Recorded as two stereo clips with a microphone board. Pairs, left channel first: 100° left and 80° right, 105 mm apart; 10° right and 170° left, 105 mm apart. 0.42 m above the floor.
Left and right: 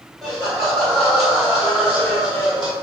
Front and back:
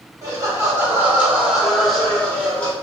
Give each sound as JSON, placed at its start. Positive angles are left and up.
{"t": 0.2, "sound": "laughter", "azimuth_deg": -165, "distance_m": 1.5}